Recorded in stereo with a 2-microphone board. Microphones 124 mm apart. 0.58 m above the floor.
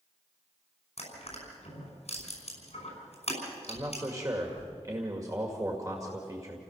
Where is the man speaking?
30° right (ahead or behind), 2 m.